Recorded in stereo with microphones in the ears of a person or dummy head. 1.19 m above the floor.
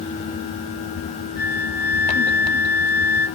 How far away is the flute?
About 1.4 m.